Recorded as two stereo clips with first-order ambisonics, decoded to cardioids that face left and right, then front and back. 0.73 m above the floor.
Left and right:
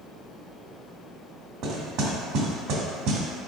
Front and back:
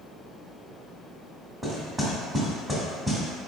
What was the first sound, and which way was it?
Knocking, 95° right.